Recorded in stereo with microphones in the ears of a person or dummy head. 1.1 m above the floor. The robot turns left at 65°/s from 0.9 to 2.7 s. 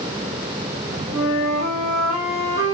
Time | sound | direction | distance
1.1 | a flute | 175° right | 6.5 m